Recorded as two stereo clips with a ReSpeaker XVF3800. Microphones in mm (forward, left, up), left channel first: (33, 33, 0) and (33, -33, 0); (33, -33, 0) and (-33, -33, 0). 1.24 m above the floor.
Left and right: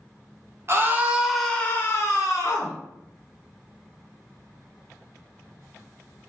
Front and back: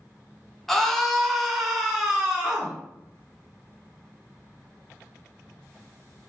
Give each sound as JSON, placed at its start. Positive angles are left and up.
{"t": 0.7, "sound": "a scream", "azimuth_deg": -85, "distance_m": 0.7}